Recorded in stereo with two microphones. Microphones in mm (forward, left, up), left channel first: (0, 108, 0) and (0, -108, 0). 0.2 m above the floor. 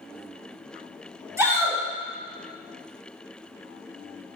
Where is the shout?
10° right (ahead or behind), 1.1 m.